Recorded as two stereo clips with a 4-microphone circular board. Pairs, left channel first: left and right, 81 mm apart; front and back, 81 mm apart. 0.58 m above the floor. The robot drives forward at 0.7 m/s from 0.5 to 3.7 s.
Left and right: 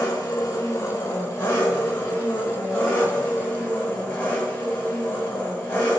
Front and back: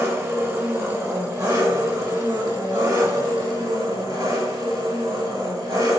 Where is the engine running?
130° left, 2 m; by 6.0 s 160° left, 4 m.